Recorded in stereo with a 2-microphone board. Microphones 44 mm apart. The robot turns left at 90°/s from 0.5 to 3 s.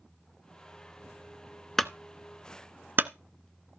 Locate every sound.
1.8 s a clunk: 5° left (ahead or behind), 0.6 m; by 3.1 s 55° right (ahead or behind), 0.6 m